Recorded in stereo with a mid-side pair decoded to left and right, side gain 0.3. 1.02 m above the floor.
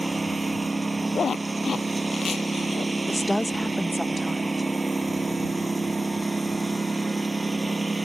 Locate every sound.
0.0 s a lawn mower: 25° right
1.1 s a zipper: 60° left
3.1 s a woman speaking: 15° left